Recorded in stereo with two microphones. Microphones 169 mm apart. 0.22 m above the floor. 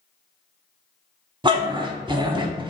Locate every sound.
1.4 s a dog barking: 30° right (ahead or behind), 0.5 m